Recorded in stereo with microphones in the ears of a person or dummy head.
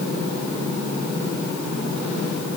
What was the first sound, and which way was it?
Only background noise.